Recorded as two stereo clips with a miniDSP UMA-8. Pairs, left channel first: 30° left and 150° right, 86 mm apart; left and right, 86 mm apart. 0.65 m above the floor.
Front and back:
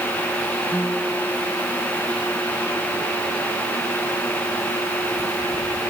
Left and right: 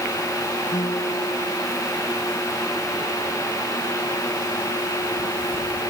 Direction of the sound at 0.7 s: 110° left.